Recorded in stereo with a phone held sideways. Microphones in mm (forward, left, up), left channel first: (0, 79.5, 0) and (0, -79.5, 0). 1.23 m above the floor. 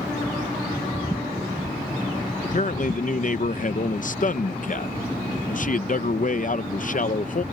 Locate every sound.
2.4 s a man speaking: 55° left (ahead or behind)